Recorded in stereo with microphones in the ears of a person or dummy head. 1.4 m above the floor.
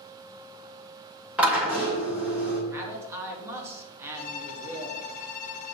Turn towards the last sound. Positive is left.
turn(degrees=50)  # may be behind; listen again after turning